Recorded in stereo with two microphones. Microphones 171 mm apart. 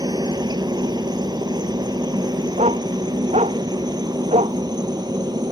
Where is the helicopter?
25° right (ahead or behind).